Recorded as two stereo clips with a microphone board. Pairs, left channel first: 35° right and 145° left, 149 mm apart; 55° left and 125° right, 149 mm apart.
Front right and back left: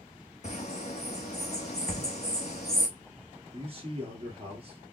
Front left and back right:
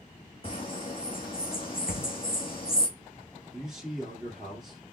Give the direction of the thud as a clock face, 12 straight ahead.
11 o'clock.